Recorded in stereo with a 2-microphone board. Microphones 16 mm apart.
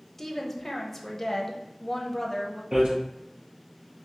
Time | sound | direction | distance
0.2 | a woman speaking | 10° left (ahead or behind) | 0.7 m
2.7 | hammering | 75° right (ahead or behind) | 2 m